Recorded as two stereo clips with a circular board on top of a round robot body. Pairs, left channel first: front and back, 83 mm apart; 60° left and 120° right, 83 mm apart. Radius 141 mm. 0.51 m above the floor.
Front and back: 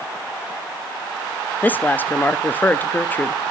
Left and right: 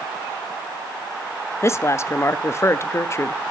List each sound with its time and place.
1.6 s a woman speaking: 50° left, 0.7 m